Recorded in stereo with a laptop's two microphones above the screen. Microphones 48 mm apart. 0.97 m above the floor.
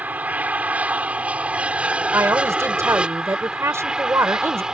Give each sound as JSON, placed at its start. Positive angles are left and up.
{"t": 0.0, "sound": "an aircraft", "side_deg": -30}
{"t": 2.1, "sound": "a woman speaking", "side_deg": -70}